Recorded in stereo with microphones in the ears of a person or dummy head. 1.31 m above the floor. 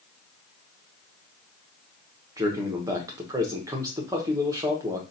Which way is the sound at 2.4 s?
20° right (ahead or behind).